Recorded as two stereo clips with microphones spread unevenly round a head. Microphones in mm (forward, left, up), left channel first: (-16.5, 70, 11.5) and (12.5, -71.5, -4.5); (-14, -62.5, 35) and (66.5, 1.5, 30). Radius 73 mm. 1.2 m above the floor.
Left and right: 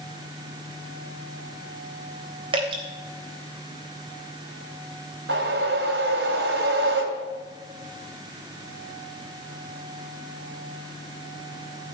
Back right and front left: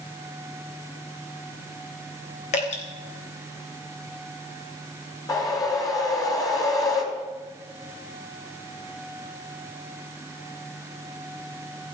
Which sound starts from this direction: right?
A whoosh, at 5.3 s.